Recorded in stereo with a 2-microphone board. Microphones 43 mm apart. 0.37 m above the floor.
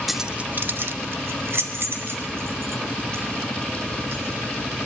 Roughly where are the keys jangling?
Centre.